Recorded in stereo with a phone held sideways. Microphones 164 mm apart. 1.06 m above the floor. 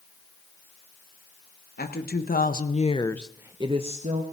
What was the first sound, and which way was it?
A woman speaking, 70° left (ahead or behind).